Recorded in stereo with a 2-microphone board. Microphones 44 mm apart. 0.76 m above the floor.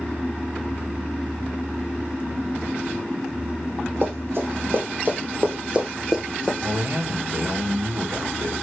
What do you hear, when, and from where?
4.0 s running footsteps: 65° right (ahead or behind), 1.8 m; by 6.5 s 5° left (ahead or behind), 0.9 m
6.6 s a man speaking: 70° right (ahead or behind), 1.3 m